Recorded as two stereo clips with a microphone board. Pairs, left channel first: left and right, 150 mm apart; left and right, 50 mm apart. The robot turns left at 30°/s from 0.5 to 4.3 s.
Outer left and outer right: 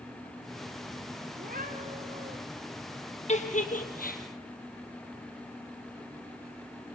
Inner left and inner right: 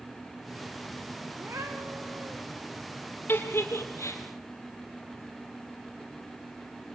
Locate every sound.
1.4 s a cat meowing: 105° right, 3 m; by 2.4 s 135° right, 3 m
3.3 s a giggle: 45° left (ahead or behind), 3 m; by 4.2 s 75° left (ahead or behind), 3 m